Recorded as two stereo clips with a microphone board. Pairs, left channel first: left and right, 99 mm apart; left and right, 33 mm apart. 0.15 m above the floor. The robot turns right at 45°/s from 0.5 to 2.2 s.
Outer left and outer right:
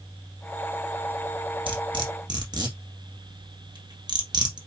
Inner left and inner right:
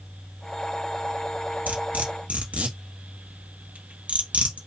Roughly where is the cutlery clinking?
Right.